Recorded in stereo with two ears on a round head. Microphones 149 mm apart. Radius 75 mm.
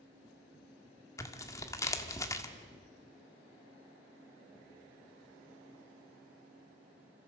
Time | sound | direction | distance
1.2 | tearing paper | 20° left (ahead or behind) | 1.5 m